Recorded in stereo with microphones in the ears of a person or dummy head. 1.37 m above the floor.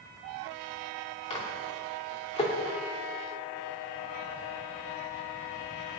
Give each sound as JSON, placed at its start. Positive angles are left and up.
{"t": 1.3, "sound": "a microwave", "side_deg": 25, "distance_m": 2.5}